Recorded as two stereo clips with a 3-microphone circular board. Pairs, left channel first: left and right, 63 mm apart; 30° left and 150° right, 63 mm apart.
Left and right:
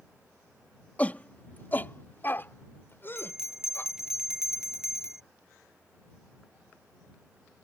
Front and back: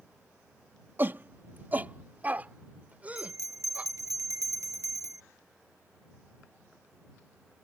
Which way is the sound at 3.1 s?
170° right.